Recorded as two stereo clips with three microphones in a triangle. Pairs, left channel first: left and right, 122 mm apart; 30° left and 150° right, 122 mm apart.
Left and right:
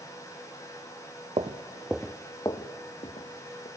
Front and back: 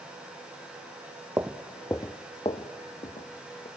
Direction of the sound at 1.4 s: 85° right.